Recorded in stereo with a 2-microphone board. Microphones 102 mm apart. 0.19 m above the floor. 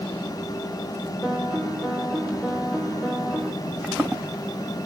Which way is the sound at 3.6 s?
5° right (ahead or behind).